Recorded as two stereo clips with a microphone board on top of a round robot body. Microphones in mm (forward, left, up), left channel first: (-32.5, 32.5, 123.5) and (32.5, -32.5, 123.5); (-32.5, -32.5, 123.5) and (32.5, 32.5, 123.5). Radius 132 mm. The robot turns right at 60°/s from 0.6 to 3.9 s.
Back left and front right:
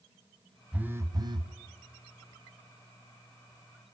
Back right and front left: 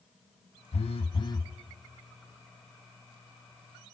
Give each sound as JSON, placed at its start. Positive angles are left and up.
{"t": 0.7, "sound": "a phone buzzing", "azimuth_deg": -125, "distance_m": 0.8}